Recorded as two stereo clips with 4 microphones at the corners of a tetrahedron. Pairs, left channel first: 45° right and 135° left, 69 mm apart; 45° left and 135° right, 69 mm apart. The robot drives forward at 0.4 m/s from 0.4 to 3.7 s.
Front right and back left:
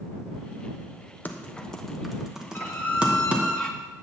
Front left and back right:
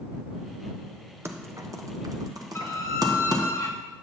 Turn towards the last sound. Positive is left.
turn(degrees=25)